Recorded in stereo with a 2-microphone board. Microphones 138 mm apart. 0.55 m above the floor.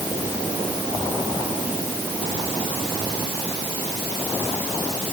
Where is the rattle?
No rattle in this recording.